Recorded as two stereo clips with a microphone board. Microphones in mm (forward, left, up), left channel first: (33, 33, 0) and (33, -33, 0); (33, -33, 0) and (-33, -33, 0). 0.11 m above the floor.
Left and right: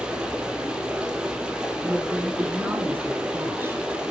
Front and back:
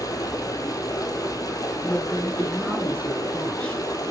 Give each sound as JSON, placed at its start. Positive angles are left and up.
{"t": 0.0, "sound": "running water", "azimuth_deg": -15, "distance_m": 1.3}
{"t": 1.8, "sound": "a woman speaking", "azimuth_deg": -60, "distance_m": 1.9}